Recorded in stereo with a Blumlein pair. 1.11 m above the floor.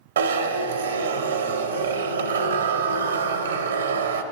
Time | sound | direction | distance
0.2 | a zipper | 65° right | 0.6 m